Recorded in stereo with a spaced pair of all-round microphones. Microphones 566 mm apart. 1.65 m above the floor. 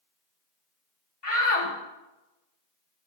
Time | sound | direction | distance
1.2 | a shout | 65° left (ahead or behind) | 1.7 m